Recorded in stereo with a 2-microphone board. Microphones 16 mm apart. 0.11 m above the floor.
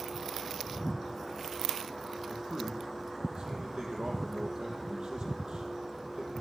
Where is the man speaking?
65° right (ahead or behind), 3.5 m.